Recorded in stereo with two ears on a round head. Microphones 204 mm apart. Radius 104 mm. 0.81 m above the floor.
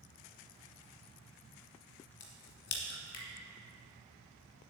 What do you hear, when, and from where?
2.2 s a crack: 55° left (ahead or behind), 1.8 m